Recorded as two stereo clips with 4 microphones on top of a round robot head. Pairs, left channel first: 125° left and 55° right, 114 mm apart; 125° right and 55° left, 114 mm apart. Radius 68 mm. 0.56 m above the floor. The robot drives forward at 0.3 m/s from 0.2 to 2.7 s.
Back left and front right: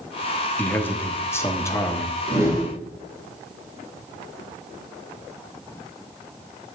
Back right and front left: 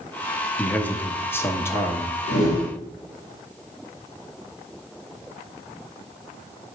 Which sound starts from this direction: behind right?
A whoosh, at 2.3 s.